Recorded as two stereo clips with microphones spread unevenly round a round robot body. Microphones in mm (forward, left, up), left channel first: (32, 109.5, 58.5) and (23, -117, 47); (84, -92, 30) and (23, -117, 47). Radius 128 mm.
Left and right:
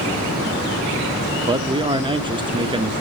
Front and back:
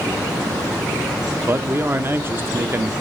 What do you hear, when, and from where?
1.5 s a man speaking: 115° right, 0.7 m